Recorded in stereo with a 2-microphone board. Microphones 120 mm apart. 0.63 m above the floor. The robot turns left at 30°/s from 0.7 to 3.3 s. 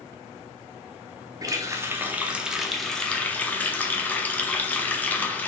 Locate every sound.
1.4 s a running tap: 140° right, 0.6 m; by 5.5 s 165° left, 0.6 m